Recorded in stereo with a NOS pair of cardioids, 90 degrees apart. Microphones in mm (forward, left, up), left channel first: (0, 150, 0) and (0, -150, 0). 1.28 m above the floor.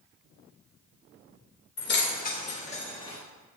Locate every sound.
1.8 s keys jangling: 40° left, 1.3 m; by 3.2 s 15° left, 2.0 m